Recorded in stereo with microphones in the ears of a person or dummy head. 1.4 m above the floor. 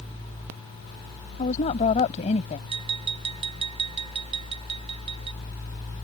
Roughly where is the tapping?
Right.